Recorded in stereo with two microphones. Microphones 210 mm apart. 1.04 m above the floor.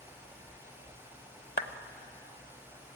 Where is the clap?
45° left (ahead or behind), 0.8 m.